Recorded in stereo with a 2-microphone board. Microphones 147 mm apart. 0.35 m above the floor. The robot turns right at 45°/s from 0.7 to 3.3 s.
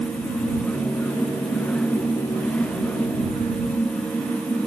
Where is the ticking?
No ticking in this recording.